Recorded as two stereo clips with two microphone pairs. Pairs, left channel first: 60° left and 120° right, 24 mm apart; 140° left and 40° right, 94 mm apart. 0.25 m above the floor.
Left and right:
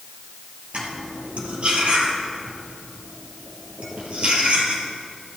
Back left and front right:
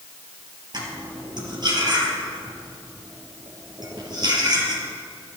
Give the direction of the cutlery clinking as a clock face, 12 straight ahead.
3 o'clock.